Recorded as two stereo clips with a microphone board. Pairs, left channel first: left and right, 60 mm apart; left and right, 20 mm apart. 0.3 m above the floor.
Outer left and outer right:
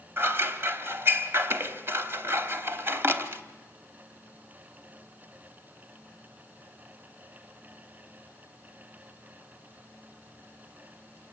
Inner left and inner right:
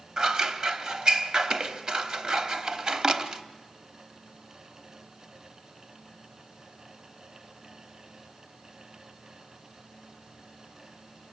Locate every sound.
0.2 s scissors: 40° right (ahead or behind), 1.0 m